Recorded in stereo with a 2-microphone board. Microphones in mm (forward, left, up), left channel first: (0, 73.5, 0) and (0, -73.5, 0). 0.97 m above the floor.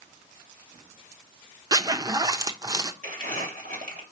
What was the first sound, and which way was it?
A zipper, 25° right (ahead or behind).